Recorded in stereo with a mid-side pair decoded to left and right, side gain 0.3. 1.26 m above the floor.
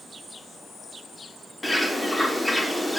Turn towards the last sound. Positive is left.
turn(degrees=10)